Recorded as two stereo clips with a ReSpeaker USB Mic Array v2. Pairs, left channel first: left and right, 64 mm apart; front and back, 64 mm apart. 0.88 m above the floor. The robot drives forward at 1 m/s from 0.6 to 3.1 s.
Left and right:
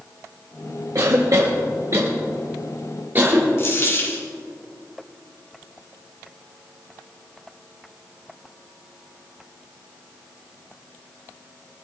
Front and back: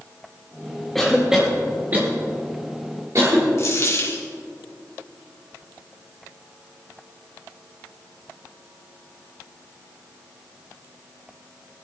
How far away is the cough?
About 1.6 m.